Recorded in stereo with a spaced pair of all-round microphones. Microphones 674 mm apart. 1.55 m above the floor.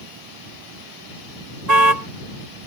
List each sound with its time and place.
1.7 s a car horn: 75° right (ahead or behind)